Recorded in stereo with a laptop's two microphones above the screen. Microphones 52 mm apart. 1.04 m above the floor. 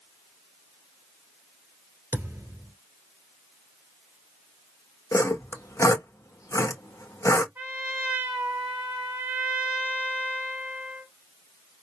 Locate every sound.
2.1 s a thud: 55° right (ahead or behind), 1.7 m
5.1 s sawing: 80° left, 0.9 m
7.5 s a trumpet: 25° right (ahead or behind), 1.4 m